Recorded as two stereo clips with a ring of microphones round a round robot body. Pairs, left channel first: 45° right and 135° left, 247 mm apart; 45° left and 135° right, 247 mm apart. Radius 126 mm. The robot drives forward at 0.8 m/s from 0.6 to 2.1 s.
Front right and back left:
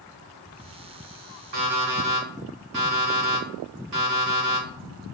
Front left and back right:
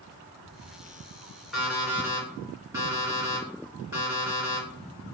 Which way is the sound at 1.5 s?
135° left.